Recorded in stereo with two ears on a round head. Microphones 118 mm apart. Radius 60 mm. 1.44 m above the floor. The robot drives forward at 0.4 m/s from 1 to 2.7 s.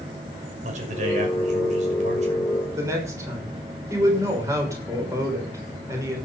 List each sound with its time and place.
0.6 s a man speaking: 65° right (ahead or behind), 6 m; by 2.5 s 60° right (ahead or behind), 6.5 m
2.8 s a woman speaking: 20° right (ahead or behind), 6 m